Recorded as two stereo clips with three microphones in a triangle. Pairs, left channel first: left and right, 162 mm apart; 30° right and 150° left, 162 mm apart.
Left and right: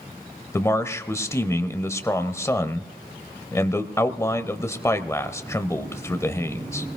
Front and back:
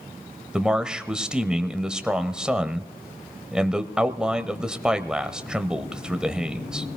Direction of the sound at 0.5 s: 80° left.